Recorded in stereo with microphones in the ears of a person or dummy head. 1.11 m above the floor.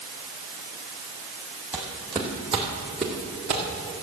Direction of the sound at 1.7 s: 10° right (ahead or behind).